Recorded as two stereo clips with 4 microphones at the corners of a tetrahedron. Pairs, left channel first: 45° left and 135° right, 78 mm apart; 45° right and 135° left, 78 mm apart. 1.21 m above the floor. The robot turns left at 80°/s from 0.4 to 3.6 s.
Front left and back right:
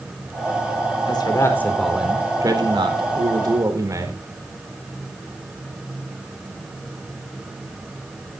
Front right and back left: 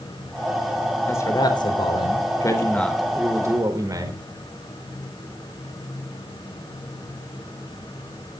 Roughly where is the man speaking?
Ahead.